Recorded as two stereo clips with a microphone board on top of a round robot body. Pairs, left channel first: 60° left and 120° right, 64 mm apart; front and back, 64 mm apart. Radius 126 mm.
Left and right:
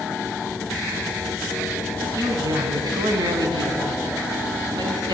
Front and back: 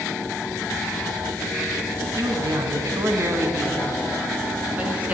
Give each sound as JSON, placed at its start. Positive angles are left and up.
{"t": 2.2, "sound": "a man speaking", "azimuth_deg": -150, "distance_m": 4.0}